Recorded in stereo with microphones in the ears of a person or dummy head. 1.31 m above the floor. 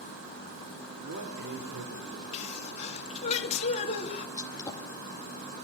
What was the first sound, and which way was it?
A man speaking, 70° right (ahead or behind).